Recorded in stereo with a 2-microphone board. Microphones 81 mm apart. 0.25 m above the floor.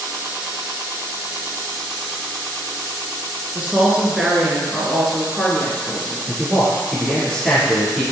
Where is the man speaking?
Centre (ahead or behind), 3.5 m.